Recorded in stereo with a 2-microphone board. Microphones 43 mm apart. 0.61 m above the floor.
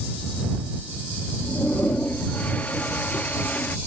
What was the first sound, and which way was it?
A toilet flushing, 40° left (ahead or behind).